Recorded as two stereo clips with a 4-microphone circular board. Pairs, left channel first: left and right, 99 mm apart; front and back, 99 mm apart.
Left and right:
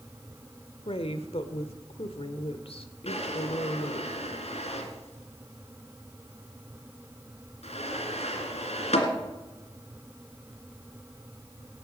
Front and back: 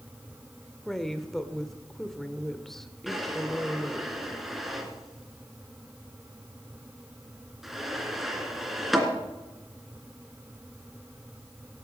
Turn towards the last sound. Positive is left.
turn(degrees=90)